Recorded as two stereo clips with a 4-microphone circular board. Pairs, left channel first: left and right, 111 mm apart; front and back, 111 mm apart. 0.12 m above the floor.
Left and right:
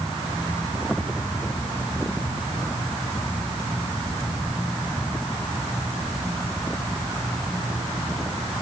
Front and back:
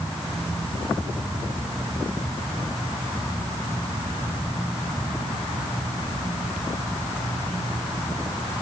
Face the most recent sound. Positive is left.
No sound to turn to.